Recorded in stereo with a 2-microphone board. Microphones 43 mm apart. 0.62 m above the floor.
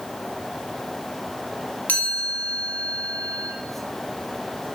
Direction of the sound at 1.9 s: 45° left (ahead or behind).